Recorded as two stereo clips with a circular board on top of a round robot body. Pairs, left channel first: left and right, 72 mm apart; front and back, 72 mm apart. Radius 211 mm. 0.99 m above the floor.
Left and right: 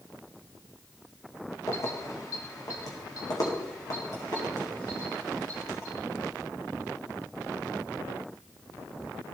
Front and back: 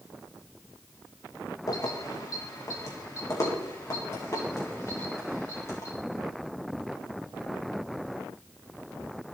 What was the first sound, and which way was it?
Keys jangling, 40° left.